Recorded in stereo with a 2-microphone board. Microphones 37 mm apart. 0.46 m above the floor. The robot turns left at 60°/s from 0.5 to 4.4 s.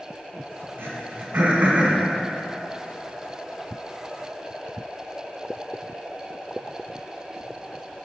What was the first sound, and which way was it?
Throat clearing, 80° right.